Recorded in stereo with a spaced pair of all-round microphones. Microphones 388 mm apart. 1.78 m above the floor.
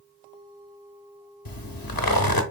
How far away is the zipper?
About 0.6 m.